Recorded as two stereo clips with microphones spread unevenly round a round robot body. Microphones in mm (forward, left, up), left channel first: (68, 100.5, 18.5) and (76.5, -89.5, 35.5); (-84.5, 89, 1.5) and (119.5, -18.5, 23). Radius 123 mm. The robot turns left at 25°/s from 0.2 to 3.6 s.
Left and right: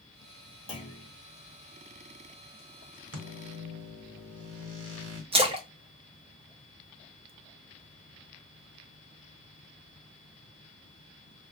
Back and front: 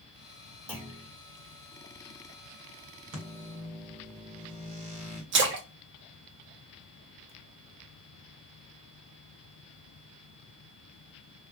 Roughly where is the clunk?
Ahead left.